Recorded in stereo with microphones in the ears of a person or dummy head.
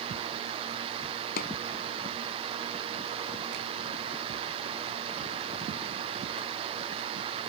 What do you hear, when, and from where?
1.4 s a pop: 50° left (ahead or behind)